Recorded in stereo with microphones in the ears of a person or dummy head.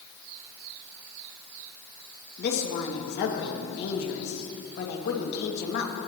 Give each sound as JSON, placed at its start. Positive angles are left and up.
{"t": 2.4, "sound": "a woman speaking", "side_deg": 60, "distance_m": 1.8}